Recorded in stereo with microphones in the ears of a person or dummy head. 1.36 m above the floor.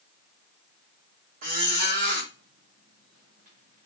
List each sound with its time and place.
1.4 s a squeak: 45° right (ahead or behind), 0.8 m